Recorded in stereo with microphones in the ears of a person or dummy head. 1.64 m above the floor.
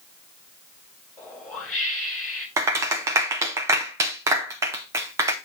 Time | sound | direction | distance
1.2 | a whoosh | 10° left (ahead or behind) | 1.1 m
2.6 | a clap | 10° right (ahead or behind) | 0.7 m